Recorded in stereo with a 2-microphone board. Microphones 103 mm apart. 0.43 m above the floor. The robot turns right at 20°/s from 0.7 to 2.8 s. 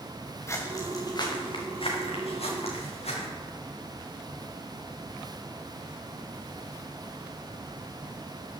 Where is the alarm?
I don't hear an alarm.